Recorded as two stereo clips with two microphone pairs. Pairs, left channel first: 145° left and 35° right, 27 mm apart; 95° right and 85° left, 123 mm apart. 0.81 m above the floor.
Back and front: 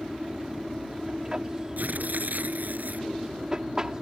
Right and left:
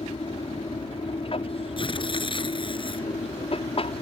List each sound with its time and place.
0.0 s an aircraft: 95° right
1.8 s tearing paper: 50° right